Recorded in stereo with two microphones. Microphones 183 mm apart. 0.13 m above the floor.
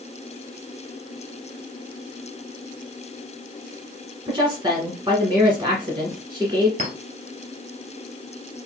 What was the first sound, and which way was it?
A woman speaking, 25° right (ahead or behind).